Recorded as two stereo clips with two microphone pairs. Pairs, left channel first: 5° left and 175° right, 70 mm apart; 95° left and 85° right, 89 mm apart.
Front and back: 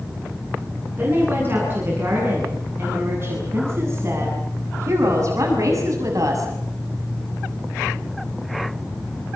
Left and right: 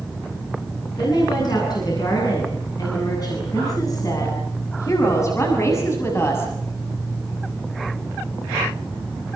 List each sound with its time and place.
1.0 s a woman speaking: 125° left, 9.5 m; by 6.5 s 155° left, 6 m